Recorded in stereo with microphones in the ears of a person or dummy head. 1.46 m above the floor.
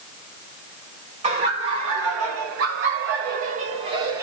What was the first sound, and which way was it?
Laughter, 35° right (ahead or behind).